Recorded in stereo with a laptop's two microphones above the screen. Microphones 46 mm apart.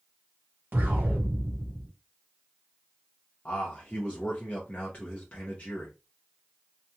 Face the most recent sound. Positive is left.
turn(degrees=30)  # may be behind; listen again after turning